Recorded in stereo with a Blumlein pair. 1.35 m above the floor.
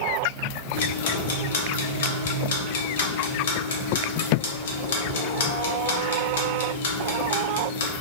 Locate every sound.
0.7 s ticking: 60° left, 0.6 m